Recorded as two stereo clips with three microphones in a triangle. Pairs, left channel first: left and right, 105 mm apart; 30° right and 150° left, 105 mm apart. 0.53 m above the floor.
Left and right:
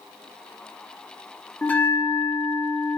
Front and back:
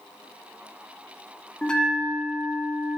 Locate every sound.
1.6 s a bell: 40° left, 1.2 m